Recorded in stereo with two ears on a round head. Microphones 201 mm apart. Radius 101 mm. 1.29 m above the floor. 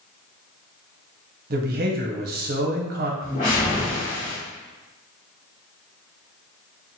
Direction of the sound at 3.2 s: 40° left (ahead or behind).